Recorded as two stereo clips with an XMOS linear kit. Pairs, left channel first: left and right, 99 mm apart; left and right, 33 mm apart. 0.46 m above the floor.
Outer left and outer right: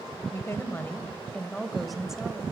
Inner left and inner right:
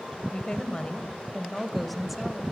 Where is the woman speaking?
30° left (ahead or behind), 2 m; by 2.4 s 10° right (ahead or behind), 2.0 m.